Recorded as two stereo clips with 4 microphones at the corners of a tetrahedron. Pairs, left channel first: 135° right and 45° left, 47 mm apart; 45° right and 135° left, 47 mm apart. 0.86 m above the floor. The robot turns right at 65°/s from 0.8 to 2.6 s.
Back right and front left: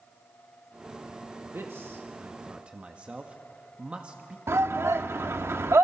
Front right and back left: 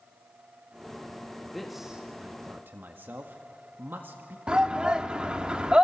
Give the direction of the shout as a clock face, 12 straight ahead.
10 o'clock.